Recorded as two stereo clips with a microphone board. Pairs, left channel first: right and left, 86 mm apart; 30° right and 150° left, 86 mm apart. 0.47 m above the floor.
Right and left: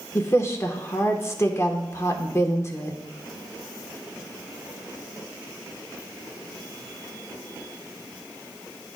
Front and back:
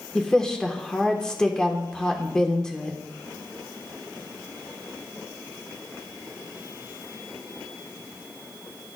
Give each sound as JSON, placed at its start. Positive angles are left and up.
{"t": 0.1, "sound": "a woman speaking", "azimuth_deg": -105, "distance_m": 0.9}